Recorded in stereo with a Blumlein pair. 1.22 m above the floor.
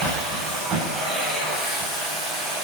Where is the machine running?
15° right, 7.5 m.